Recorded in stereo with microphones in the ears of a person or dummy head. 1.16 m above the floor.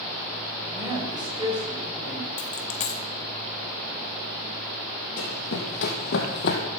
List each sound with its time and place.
0.7 s a woman speaking: 20° right (ahead or behind), 4 m; by 2.3 s 40° right (ahead or behind), 4.5 m
2.4 s a dropped coin: 35° left (ahead or behind), 0.6 m
5.2 s running footsteps: 70° left (ahead or behind), 3 m; by 6.6 s 60° left (ahead or behind), 2.5 m